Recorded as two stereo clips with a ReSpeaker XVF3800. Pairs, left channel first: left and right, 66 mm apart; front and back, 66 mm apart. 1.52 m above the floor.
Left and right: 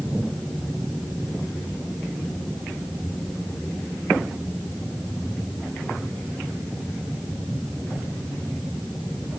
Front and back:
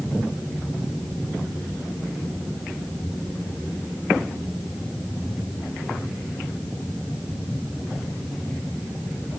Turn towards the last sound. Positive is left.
No sound to turn to.